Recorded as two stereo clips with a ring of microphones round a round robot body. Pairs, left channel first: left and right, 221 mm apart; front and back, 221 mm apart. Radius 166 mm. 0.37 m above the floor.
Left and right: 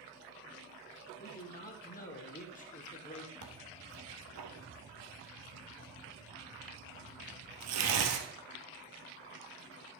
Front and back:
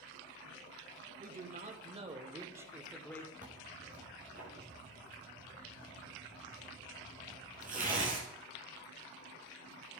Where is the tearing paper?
115° right, 1.5 m.